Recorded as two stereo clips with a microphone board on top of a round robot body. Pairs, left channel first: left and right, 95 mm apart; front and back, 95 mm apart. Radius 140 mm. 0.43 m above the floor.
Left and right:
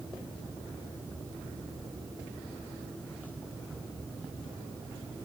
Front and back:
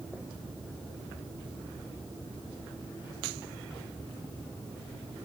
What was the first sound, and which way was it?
Only background noise.